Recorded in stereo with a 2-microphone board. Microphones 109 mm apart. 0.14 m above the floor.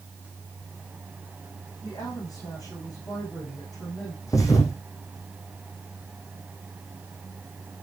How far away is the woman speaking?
About 8.5 m.